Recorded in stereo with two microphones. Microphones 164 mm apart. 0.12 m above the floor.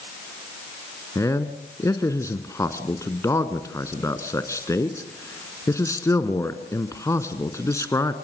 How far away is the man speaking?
About 1.1 m.